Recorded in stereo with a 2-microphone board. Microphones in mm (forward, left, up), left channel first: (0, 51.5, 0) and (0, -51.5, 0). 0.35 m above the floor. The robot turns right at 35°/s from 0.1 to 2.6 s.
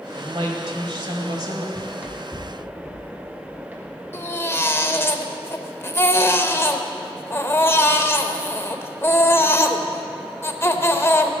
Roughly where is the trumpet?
I don't hear a trumpet.